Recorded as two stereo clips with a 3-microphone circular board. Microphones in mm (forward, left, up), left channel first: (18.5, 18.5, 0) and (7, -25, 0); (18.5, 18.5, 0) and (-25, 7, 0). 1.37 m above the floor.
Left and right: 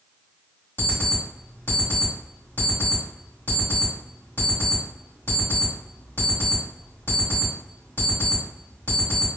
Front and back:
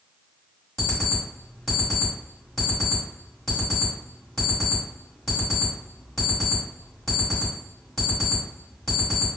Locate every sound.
0.8 s an alarm clock: 95° left, 1.8 m